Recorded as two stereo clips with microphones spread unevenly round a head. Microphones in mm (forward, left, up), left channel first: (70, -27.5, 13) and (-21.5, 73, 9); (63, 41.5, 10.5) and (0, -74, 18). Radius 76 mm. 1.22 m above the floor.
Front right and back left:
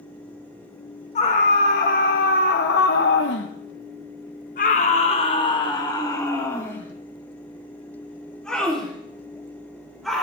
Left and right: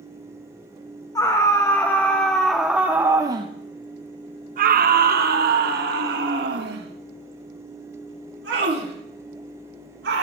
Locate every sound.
1.1 s a scream: 5° right, 1.5 m; by 10.2 s 135° right, 3.5 m